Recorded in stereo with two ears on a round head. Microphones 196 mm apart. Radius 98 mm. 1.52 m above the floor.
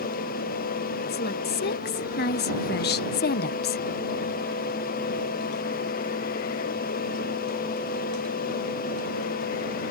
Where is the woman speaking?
50° left (ahead or behind); by 3.8 s 45° left (ahead or behind).